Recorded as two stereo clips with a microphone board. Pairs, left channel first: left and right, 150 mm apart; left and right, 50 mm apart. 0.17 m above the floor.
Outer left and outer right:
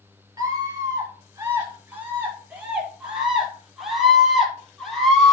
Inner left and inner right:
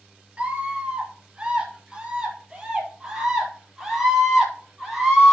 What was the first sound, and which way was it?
A scream, 25° right (ahead or behind).